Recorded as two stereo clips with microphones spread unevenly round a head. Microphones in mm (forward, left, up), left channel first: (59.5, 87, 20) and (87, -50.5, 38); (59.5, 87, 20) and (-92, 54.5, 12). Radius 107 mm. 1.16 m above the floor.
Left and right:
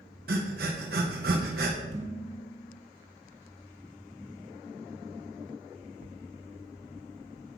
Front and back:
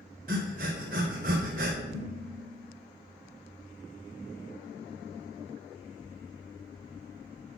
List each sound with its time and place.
0.3 s breathing: 120° right, 0.9 m
1.9 s dishes clattering: 110° right, 4 m